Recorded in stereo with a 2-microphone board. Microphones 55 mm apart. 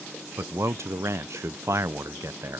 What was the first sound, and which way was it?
A man speaking, 65° right (ahead or behind).